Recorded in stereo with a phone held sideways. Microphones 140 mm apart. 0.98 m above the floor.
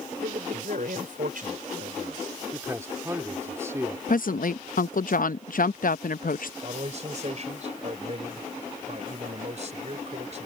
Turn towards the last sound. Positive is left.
turn(degrees=-50)  # may be behind; listen again after turning